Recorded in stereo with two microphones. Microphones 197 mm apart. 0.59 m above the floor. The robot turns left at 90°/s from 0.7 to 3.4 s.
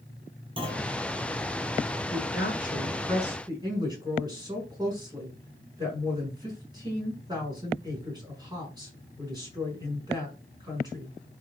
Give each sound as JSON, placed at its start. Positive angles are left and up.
{"t": 0.6, "sound": "a clunk", "side_deg": -30, "distance_m": 6.0}
{"t": 2.1, "sound": "a woman speaking", "azimuth_deg": 95, "distance_m": 5.5}